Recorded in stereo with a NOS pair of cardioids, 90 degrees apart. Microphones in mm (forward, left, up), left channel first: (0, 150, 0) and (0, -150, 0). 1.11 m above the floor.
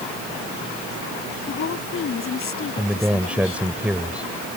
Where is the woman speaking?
45° left.